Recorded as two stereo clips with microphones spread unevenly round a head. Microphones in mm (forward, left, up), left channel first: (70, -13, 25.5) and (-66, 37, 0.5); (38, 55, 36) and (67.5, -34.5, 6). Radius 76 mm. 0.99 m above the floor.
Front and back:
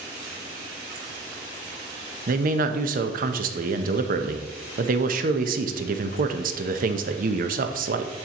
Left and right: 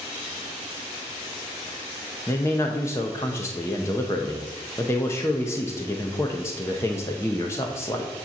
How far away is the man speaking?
About 0.6 m.